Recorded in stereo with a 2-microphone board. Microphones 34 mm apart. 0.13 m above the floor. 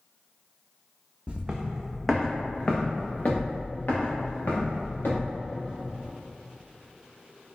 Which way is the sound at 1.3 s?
35° right (ahead or behind).